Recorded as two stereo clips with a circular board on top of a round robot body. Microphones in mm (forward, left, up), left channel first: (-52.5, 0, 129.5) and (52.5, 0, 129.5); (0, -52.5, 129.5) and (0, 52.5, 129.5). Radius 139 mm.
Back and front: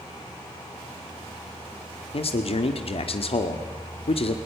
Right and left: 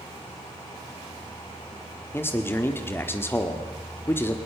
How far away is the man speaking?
About 1.6 m.